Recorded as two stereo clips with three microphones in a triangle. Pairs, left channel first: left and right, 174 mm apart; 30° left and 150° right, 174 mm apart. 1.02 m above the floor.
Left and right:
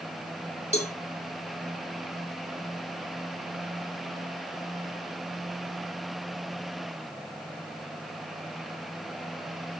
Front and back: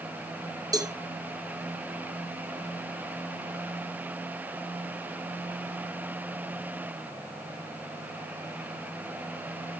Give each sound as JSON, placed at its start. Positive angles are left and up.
{"t": 0.7, "sound": "a cowbell", "azimuth_deg": 140, "distance_m": 1.4}